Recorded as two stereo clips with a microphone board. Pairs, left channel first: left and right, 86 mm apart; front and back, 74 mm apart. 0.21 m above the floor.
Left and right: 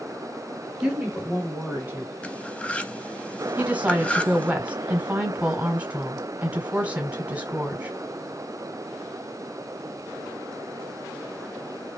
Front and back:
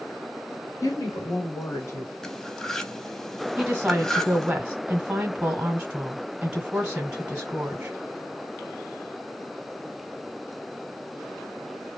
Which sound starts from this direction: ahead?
A woman speaking, at 0.8 s.